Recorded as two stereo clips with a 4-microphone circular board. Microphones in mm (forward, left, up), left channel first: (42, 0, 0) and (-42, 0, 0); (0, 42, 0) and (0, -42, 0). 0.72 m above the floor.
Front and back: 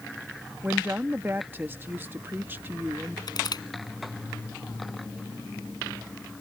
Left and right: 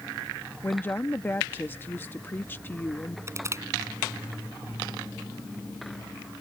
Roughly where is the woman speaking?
Behind left.